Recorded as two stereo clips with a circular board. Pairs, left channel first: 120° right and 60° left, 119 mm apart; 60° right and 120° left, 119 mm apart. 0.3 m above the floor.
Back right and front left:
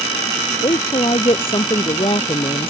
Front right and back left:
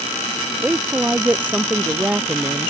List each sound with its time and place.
0.6 s a woman speaking: 165° right